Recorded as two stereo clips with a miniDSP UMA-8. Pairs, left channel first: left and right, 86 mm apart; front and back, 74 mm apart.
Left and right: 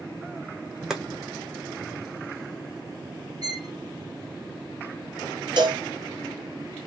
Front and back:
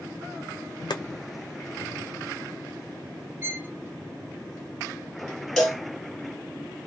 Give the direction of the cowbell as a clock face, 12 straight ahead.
3 o'clock.